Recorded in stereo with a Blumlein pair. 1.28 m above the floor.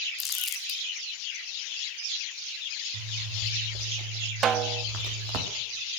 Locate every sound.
0.2 s crumpling: 25° left, 2 m
2.9 s a zipper: 40° right, 3.5 m
4.4 s a snare drum: 25° right, 0.7 m